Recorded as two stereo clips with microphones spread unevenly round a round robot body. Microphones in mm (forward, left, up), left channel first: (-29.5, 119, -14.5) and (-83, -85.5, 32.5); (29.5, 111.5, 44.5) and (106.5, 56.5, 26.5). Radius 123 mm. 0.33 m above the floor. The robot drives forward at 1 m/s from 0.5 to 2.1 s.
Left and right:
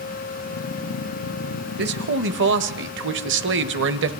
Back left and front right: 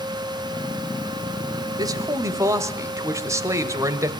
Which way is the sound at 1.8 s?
55° right.